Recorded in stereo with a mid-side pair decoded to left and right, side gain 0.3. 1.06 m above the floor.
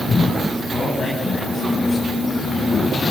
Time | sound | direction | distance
0.7 | a man speaking | 60° left | 8.5 m